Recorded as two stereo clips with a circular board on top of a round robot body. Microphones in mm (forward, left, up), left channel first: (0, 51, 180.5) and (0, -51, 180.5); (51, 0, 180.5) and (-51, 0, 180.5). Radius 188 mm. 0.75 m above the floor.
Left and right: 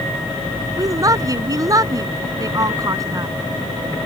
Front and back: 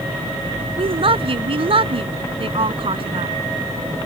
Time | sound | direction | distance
0.8 | a woman speaking | 145° right | ?